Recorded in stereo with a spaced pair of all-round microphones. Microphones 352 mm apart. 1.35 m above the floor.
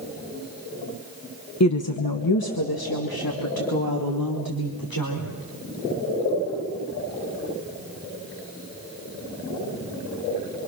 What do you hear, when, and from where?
1.6 s a woman speaking: 50° left (ahead or behind), 1.0 m; by 5.3 s 75° left (ahead or behind), 5 m